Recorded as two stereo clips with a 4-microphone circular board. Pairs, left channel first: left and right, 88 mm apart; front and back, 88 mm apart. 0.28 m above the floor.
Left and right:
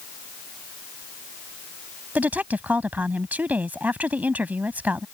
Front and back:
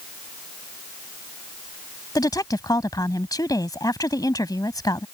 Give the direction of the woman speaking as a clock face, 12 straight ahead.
1 o'clock.